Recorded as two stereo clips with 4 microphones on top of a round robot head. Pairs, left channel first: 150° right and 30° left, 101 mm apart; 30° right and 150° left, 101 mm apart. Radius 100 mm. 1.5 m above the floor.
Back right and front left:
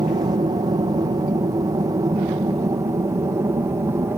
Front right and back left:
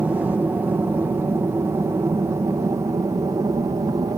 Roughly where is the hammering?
No hammering in this recording.